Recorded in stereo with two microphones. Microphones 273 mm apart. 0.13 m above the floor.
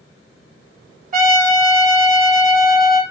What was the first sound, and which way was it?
A trumpet, 35° right (ahead or behind).